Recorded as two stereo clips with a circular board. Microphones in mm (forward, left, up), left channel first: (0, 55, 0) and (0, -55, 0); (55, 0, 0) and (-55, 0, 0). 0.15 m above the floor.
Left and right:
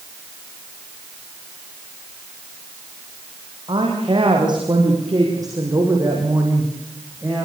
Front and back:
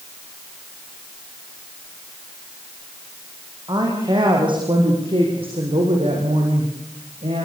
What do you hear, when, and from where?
3.7 s a woman speaking: 130° right, 7 m; by 7.5 s 165° right, 7.5 m